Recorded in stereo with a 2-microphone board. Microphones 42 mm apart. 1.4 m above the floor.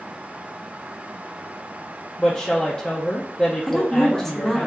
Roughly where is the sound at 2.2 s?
Left.